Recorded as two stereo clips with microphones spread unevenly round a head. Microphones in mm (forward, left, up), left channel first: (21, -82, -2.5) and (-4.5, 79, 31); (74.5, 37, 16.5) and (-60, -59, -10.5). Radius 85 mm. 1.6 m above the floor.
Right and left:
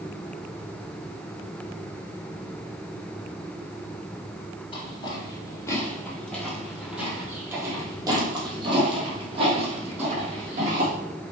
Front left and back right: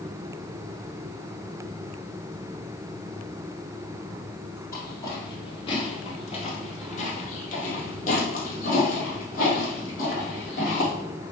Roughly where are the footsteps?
Ahead.